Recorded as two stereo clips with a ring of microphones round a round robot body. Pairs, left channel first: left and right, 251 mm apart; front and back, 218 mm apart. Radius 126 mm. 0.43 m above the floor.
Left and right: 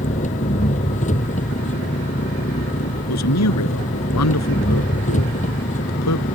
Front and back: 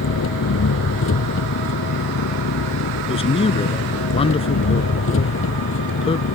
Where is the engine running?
25° left.